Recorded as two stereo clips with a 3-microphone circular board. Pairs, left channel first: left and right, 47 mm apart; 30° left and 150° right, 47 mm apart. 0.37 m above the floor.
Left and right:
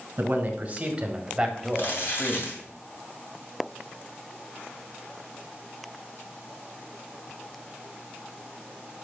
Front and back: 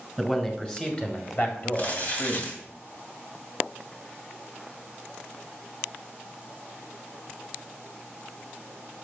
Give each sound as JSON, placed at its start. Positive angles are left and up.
{"t": 0.2, "sound": "a man speaking", "azimuth_deg": -55, "distance_m": 2.0}
{"t": 1.7, "sound": "crumpling", "azimuth_deg": 75, "distance_m": 3.0}